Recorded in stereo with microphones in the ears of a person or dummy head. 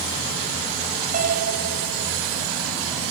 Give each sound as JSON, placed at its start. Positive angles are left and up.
{"t": 1.1, "sound": "a piano", "side_deg": -45}